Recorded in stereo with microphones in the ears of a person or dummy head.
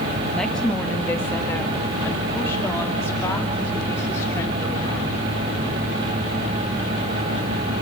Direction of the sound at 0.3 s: 5° left (ahead or behind).